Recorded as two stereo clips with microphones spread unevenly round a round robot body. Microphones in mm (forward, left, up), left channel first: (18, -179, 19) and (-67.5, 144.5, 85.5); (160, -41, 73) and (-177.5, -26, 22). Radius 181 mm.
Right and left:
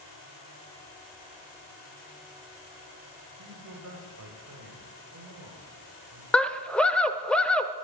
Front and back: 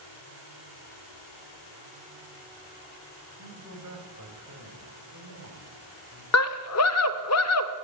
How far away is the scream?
About 0.9 m.